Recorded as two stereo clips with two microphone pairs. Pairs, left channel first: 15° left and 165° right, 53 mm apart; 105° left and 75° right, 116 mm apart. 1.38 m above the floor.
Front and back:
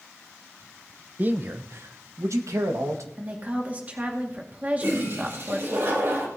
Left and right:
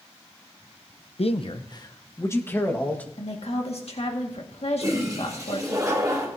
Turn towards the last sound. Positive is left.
turn(degrees=-135)